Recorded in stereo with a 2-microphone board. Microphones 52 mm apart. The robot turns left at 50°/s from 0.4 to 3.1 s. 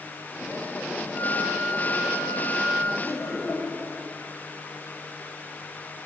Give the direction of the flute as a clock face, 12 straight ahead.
7 o'clock.